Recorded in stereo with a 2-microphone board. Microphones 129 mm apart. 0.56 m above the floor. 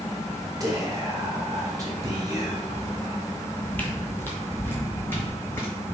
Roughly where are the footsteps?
Centre.